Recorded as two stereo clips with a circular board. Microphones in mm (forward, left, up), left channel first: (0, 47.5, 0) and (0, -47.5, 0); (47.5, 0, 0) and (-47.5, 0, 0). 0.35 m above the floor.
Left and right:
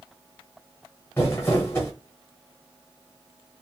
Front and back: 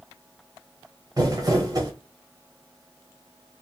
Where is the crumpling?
150° left, 1.0 m.